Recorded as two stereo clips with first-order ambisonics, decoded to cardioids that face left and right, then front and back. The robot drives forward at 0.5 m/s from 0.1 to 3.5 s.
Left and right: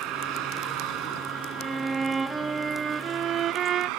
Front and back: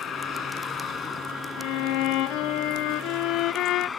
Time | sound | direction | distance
0.0 | a vehicle | 55° right | ?
1.6 | a violin | 15° right | ?